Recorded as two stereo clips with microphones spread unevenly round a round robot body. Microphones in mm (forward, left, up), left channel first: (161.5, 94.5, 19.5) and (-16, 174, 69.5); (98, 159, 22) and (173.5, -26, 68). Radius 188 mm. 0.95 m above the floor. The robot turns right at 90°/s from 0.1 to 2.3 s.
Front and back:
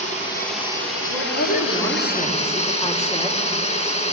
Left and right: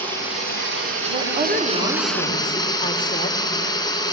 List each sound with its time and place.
0.0 s running water: 160° right, 2.5 m; by 4.1 s 35° left, 2.5 m
1.1 s a woman speaking: 60° right, 3 m; by 3.4 s 45° left, 3 m